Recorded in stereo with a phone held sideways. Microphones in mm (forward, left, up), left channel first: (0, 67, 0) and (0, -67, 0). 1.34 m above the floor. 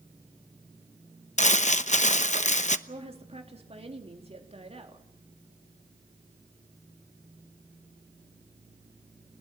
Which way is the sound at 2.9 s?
45° right (ahead or behind).